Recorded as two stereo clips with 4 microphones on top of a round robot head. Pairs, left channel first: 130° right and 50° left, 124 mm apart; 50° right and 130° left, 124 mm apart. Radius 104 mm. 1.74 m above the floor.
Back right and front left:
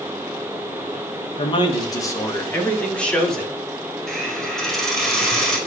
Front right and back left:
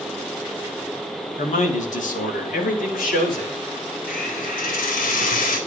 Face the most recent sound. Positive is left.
turn(degrees=-45)